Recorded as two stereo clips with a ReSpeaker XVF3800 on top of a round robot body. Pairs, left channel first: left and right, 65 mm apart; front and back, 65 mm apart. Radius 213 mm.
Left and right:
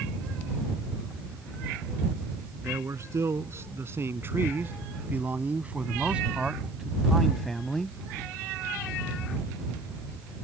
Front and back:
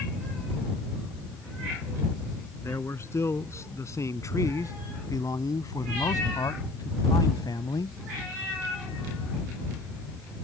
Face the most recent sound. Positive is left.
turn(degrees=10)